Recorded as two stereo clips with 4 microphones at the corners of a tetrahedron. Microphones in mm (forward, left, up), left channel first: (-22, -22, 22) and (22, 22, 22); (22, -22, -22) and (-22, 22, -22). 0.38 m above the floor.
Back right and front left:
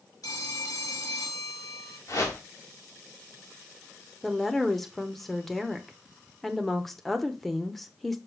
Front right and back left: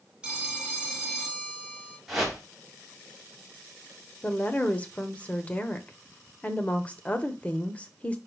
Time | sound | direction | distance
0.2 | a phone ringing | 150° right | 2 m
2.1 | a whoosh | 140° right | 2.5 m
4.2 | a woman speaking | 55° right | 0.8 m